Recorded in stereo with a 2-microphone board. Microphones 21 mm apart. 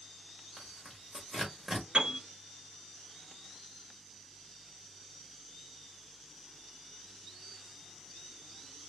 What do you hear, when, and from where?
0.6 s tearing paper: 20° right (ahead or behind), 1.5 m
1.9 s a piano: 60° right (ahead or behind), 1.7 m